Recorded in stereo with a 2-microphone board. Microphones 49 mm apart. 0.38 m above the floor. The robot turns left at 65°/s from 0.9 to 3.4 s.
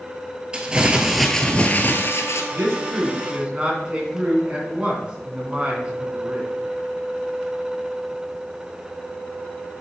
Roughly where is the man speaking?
Right.